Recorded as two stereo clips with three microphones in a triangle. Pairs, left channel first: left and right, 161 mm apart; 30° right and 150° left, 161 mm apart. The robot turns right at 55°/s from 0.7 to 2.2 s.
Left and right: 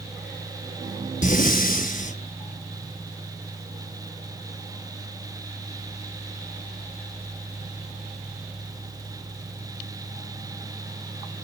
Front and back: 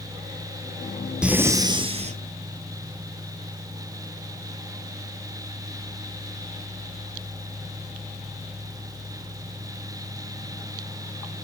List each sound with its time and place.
1.2 s breathing: 65° left, 0.9 m; by 2.2 s 120° left, 0.9 m